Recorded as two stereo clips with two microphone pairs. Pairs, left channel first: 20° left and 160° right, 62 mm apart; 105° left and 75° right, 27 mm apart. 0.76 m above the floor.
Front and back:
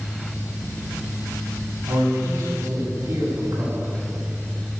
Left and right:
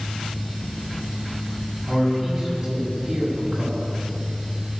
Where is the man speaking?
155° right, 6.5 m.